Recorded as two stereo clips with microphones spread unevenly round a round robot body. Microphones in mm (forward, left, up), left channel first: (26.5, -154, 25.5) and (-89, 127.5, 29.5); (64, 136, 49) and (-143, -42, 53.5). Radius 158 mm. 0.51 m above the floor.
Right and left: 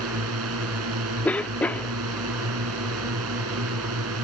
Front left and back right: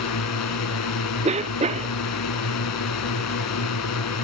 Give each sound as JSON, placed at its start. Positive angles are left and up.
{"t": 0.0, "sound": "a drone", "azimuth_deg": 65}
{"t": 1.2, "sound": "a cough", "azimuth_deg": -145}